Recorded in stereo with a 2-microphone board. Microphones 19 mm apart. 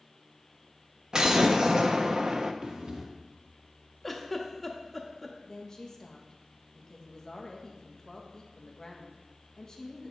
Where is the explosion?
45° right (ahead or behind), 0.6 m.